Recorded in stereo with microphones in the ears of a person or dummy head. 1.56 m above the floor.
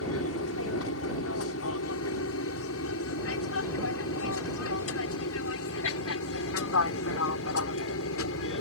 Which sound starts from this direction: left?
An aircraft, at 0.0 s.